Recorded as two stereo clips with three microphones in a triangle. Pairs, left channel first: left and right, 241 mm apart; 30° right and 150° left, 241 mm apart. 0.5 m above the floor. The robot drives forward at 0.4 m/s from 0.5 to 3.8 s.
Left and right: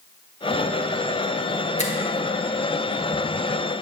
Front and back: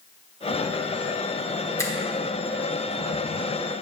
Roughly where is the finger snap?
Ahead left.